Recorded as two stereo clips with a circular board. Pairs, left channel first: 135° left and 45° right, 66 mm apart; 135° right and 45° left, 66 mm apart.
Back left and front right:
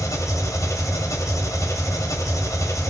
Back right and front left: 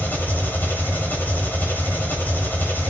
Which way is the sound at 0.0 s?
165° left.